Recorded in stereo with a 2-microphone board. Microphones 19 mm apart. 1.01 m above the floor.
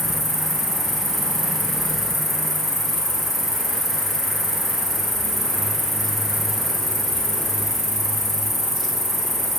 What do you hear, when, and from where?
0.0 s an insect: centre (ahead or behind), 4 m